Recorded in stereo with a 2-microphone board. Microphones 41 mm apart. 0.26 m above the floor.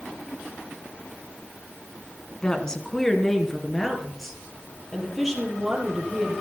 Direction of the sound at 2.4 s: 20° left (ahead or behind).